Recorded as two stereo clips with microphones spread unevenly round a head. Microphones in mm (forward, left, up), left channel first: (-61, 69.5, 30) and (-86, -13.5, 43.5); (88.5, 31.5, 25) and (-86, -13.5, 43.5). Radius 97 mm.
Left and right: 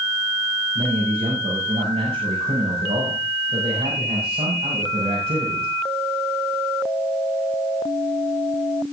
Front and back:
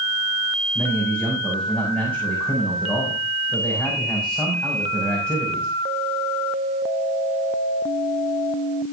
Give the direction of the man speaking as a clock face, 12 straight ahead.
2 o'clock.